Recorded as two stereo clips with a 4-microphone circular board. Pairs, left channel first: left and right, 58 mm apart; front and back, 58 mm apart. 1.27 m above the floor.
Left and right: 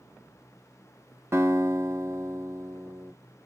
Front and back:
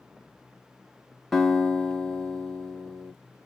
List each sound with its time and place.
1.3 s a guitar: 85° right, 1.3 m